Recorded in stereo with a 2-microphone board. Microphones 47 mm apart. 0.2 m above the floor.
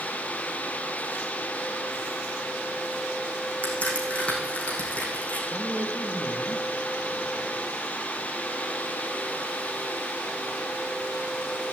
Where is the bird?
I don't hear a bird.